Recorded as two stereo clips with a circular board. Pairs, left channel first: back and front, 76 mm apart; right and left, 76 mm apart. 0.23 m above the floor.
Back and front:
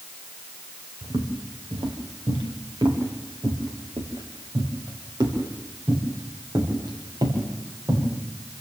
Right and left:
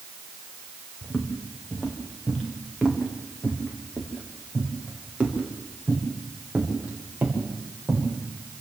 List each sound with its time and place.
1.0 s footsteps: 5° right, 4 m; by 8.1 s 20° left, 8 m